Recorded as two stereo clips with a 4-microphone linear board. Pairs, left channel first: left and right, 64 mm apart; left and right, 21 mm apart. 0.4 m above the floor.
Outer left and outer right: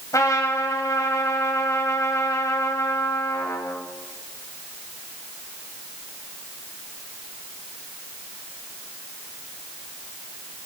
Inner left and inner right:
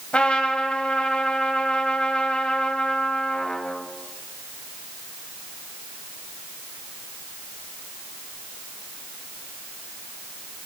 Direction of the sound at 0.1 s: 50° left (ahead or behind).